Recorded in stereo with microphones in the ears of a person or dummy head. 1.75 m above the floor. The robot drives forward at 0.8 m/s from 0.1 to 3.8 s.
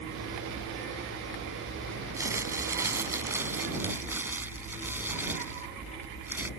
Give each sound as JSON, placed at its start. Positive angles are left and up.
{"t": 2.1, "sound": "crumpling", "side_deg": -10}